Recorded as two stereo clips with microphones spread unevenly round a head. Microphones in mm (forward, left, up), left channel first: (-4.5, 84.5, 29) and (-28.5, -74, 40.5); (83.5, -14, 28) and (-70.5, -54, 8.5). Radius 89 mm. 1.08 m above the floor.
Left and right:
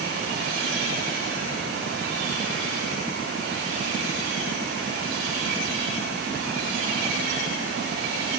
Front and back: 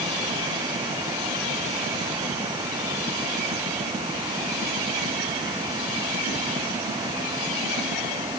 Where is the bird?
I don't hear a bird.